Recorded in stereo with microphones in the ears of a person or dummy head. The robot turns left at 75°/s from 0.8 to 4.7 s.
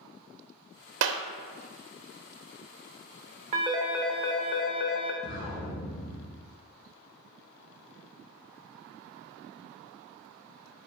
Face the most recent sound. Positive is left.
turn(degrees=35)  # may be behind; listen again after turning